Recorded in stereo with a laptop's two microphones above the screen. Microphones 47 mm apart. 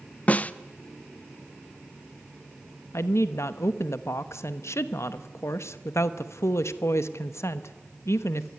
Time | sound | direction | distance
0.3 | a snare drum | 30° left (ahead or behind) | 0.7 m
2.9 | a woman speaking | 85° left | 1.0 m